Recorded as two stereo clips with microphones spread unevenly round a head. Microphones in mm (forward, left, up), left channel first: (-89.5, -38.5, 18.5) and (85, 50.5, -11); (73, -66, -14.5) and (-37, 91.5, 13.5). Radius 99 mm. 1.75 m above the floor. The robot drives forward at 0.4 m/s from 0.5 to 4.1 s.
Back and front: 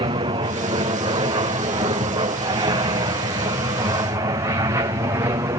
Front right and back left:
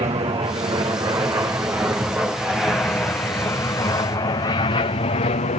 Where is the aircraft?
75° left; by 5.6 s 35° right.